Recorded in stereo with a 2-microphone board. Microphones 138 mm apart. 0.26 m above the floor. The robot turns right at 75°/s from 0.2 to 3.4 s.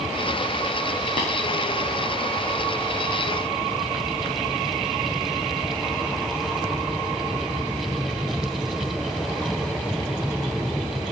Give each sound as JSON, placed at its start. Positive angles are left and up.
{"t": 1.2, "sound": "tapping", "side_deg": 65, "distance_m": 6.0}